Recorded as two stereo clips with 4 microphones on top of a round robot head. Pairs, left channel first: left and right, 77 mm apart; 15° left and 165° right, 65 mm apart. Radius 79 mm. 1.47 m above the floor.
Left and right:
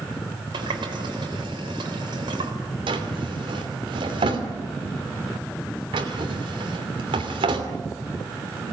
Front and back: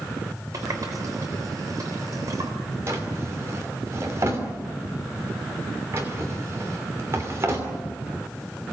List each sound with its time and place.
0.5 s a running tap: 120° right, 4 m
2.9 s a drawer: 110° right, 3 m